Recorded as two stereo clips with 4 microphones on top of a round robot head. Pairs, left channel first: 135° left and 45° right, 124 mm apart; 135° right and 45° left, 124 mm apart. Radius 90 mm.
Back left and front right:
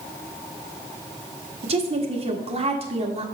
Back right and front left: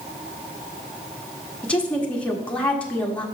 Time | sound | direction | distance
1.6 | a woman speaking | 55° right | 1.4 m